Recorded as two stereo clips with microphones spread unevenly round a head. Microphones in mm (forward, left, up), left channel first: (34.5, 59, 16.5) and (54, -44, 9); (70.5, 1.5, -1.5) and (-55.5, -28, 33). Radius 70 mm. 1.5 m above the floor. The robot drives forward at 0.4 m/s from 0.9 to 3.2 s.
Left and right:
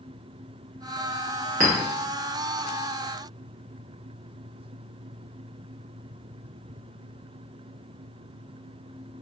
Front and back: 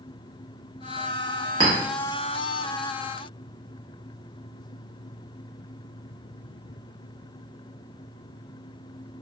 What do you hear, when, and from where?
1.6 s a clink: 120° right, 0.9 m